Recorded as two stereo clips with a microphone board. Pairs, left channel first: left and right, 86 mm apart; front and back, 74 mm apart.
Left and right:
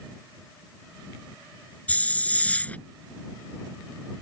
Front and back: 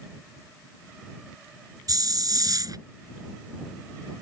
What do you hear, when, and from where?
1.9 s a hiss: 160° left